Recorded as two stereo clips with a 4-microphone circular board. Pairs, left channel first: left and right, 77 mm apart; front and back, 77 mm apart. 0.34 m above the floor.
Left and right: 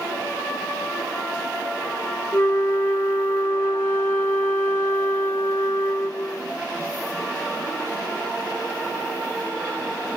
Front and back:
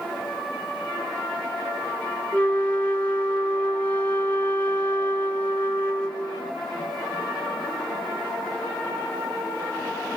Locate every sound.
2.3 s a flute: 60° left, 1.4 m